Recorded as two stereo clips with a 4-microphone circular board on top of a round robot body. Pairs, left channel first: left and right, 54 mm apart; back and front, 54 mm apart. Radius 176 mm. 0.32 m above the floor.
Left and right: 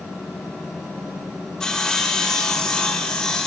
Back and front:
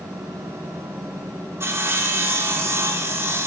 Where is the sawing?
15° left, 1.8 m.